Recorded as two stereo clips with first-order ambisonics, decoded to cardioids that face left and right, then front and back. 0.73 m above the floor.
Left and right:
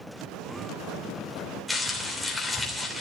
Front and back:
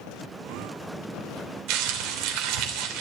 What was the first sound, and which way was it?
Crumpling, 175° left.